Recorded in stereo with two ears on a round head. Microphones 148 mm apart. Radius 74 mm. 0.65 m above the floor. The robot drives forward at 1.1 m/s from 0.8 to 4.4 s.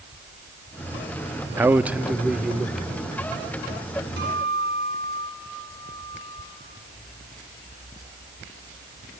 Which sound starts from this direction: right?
A guitar, at 4.2 s.